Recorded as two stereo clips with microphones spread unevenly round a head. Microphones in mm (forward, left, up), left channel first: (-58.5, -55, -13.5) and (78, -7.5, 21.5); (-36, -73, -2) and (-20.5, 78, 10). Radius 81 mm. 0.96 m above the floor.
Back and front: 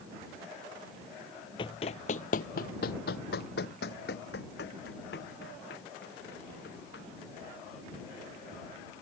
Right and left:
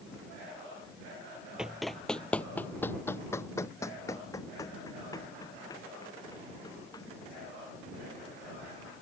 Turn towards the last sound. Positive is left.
turn(degrees=-160)